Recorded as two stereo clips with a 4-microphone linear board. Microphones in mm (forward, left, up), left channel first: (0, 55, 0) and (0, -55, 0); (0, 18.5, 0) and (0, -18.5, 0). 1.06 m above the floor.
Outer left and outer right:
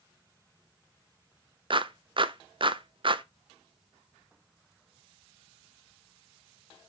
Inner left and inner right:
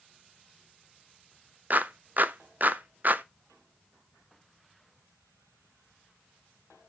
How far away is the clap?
About 0.5 m.